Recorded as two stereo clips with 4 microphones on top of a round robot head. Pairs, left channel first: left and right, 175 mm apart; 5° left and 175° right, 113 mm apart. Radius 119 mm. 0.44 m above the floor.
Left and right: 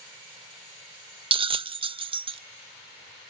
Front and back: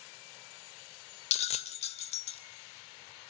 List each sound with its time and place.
1.3 s a bell: 30° right, 0.6 m